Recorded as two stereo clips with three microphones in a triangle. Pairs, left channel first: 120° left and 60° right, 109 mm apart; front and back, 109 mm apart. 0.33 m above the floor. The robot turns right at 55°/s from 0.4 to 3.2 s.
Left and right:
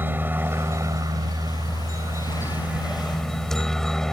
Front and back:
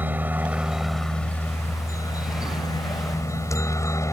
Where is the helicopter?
120° right; by 4.1 s 35° left.